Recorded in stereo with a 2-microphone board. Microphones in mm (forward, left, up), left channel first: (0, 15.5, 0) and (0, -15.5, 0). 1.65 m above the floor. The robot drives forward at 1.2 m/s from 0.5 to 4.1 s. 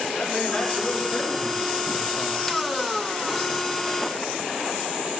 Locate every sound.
0.1 s a man speaking: 30° left (ahead or behind), 5.5 m; by 2.6 s 55° left (ahead or behind), 3.5 m